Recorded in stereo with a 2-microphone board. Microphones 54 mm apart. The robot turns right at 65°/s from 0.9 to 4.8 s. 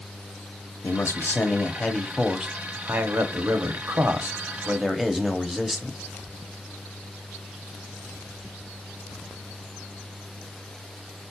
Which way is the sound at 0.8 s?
105° left.